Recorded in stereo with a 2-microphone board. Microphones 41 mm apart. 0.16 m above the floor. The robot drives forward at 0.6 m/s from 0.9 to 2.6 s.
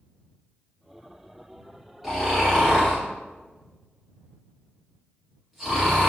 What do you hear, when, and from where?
2.0 s snoring: 5° right (ahead or behind), 1.6 m